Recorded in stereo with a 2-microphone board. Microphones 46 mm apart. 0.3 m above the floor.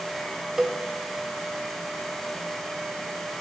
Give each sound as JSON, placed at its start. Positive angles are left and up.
{"t": 0.6, "sound": "a cowbell", "side_deg": -10, "distance_m": 1.1}